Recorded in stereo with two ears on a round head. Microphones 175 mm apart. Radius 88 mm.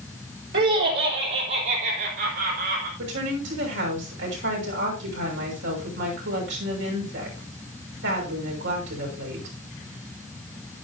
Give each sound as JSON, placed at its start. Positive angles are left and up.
{"t": 0.5, "sound": "laughter", "side_deg": -60, "distance_m": 3.5}
{"t": 3.0, "sound": "a woman speaking", "side_deg": -70, "distance_m": 6.0}